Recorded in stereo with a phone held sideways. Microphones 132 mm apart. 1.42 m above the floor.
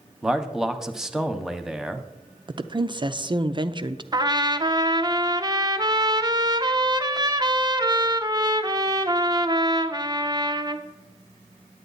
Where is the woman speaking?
35° right (ahead or behind), 0.5 m.